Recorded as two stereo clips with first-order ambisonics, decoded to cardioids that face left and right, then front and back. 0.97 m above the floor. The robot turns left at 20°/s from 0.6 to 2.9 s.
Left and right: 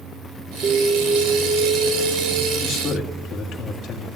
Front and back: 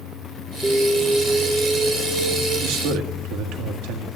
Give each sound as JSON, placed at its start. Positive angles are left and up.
{"t": 0.6, "sound": "an alarm", "azimuth_deg": -95, "distance_m": 1.0}
{"t": 2.6, "sound": "a man speaking", "azimuth_deg": 165, "distance_m": 1.7}